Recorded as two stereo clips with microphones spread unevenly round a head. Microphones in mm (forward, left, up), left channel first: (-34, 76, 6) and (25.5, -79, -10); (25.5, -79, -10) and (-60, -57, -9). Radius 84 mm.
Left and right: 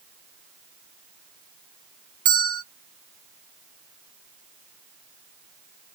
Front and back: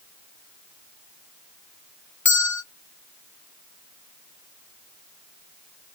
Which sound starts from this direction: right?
A bell, at 2.2 s.